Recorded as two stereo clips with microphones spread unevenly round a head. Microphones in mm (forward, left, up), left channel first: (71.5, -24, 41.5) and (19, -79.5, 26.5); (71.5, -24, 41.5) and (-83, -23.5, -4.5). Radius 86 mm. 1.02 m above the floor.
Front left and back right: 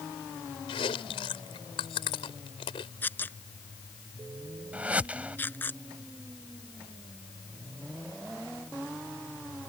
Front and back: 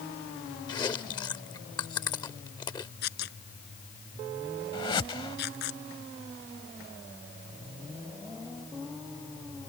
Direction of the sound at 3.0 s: 15° right.